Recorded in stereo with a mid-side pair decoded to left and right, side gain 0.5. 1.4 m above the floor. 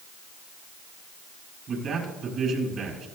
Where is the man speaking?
60° right, 7.5 m.